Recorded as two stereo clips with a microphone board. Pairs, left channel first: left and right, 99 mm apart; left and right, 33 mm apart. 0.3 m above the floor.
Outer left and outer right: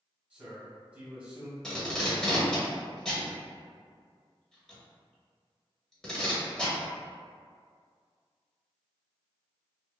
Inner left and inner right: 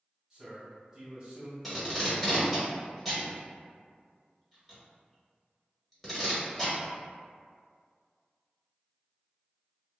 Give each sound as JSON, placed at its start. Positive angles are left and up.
{"t": 0.3, "sound": "a man speaking", "side_deg": -15, "distance_m": 1.3}
{"t": 1.6, "sound": "tape being pulled", "side_deg": 5, "distance_m": 1.0}